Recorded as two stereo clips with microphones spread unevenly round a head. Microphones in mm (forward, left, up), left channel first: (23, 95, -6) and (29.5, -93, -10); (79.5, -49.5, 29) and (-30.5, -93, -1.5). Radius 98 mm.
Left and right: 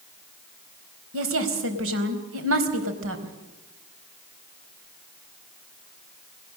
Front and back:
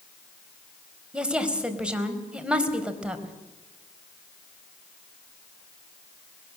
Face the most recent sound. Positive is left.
turn(degrees=-75)